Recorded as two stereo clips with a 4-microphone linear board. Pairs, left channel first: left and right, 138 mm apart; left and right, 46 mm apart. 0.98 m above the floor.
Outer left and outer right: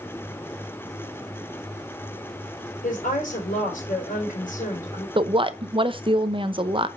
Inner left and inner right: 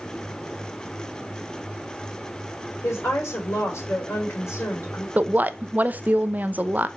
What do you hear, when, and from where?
2.8 s a woman speaking: 80° left, 3.5 m
5.2 s a woman speaking: 40° right (ahead or behind), 0.7 m